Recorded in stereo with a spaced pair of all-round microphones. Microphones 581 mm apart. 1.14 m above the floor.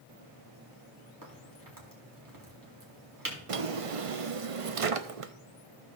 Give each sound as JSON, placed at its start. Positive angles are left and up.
{"t": 1.2, "sound": "a crack", "side_deg": -35, "distance_m": 2.5}
{"t": 3.5, "sound": "a drawer", "side_deg": -65, "distance_m": 0.7}